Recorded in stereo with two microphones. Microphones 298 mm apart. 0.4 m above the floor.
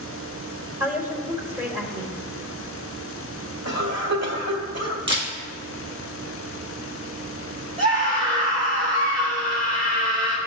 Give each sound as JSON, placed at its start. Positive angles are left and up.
{"t": 0.8, "sound": "a woman speaking", "side_deg": -10, "distance_m": 1.6}
{"t": 3.6, "sound": "a cough", "side_deg": -55, "distance_m": 1.7}
{"t": 5.1, "sound": "a camera shutter", "side_deg": -40, "distance_m": 2.5}
{"t": 7.8, "sound": "a scream", "side_deg": -25, "distance_m": 1.6}